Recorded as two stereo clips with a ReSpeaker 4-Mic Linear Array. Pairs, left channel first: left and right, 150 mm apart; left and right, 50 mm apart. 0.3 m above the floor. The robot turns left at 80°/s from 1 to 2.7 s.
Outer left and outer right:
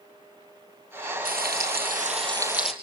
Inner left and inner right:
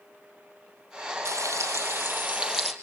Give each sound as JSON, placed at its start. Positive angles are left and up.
{"t": 1.2, "sound": "frying", "azimuth_deg": -65, "distance_m": 2.5}